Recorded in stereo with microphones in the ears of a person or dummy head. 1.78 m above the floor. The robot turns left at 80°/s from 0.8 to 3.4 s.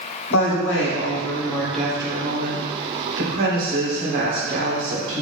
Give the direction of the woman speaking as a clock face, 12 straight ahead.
9 o'clock.